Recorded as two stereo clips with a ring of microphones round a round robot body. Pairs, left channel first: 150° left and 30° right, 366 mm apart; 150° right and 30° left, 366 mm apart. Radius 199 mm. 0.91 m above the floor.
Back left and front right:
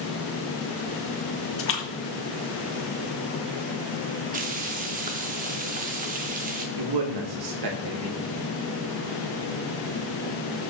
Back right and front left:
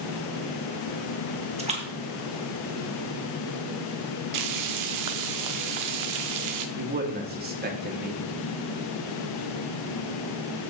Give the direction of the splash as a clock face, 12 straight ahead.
9 o'clock.